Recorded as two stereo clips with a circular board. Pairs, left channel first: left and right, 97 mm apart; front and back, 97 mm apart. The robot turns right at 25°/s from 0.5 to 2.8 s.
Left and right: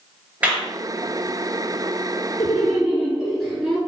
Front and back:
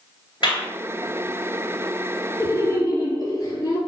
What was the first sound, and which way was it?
A clap, 15° right.